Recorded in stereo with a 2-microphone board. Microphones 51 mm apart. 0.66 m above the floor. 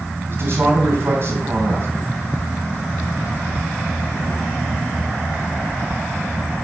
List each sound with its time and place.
0.3 s a man speaking: 50° right (ahead or behind), 4 m